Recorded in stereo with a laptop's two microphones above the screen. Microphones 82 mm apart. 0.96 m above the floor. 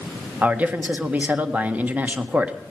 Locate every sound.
0.4 s a man speaking: 20° right (ahead or behind), 1.6 m